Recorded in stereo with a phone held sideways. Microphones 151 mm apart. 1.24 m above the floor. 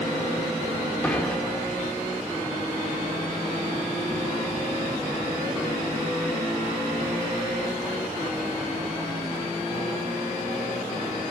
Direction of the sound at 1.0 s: 10° left (ahead or behind).